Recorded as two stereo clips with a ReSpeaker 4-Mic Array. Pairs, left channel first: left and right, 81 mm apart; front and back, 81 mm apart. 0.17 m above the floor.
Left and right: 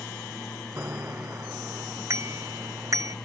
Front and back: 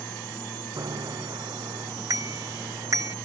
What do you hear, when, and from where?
0.8 s a bicycle bell: 145° right; by 3.2 s 135° right